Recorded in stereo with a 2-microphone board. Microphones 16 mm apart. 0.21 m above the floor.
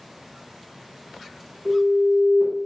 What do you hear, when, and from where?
1.6 s an alarm: 30° right (ahead or behind), 1.6 m